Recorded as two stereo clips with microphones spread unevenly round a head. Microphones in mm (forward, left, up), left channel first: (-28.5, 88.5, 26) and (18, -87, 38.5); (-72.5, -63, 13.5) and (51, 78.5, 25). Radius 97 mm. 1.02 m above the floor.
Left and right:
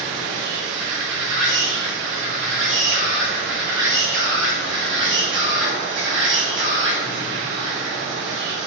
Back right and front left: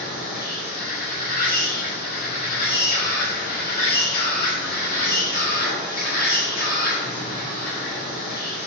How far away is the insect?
About 1.2 m.